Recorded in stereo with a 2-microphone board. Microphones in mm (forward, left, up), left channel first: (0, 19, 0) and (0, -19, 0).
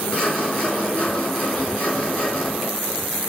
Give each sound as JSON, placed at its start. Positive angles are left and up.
{"t": 0.1, "sound": "sawing", "side_deg": 35, "distance_m": 4.5}